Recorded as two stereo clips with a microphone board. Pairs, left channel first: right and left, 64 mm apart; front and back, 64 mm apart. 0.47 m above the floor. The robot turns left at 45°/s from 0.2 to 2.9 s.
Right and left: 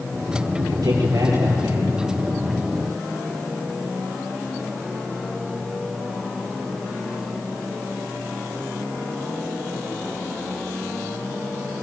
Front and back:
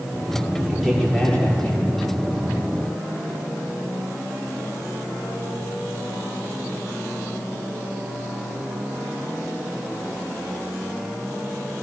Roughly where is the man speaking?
Left.